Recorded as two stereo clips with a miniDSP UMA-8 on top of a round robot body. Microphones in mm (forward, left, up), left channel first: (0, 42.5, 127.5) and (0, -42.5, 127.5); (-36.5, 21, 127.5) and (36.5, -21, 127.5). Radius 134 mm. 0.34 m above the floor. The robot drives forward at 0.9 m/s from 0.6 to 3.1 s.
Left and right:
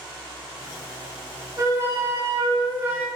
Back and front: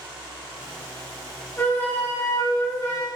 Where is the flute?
145° right, 2 m; by 3.1 s 160° right, 3.5 m.